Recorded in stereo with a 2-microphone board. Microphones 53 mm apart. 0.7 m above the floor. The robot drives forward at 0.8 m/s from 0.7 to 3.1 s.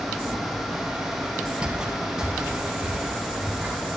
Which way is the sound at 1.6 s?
20° right (ahead or behind).